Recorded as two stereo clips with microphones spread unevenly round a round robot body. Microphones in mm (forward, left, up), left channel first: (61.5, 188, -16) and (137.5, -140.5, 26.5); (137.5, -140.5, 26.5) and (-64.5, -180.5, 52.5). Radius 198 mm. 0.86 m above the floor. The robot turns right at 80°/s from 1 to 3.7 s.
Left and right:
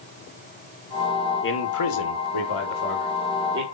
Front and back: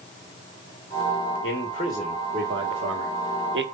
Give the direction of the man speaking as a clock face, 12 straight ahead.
10 o'clock.